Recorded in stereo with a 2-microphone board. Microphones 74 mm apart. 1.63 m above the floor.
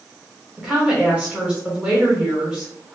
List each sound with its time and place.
0.6 s a woman speaking: 15° right (ahead or behind), 1.3 m